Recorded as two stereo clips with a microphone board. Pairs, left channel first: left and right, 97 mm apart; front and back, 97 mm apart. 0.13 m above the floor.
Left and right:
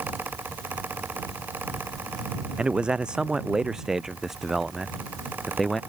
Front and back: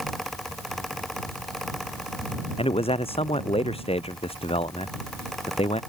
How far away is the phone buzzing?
I don't hear a phone buzzing.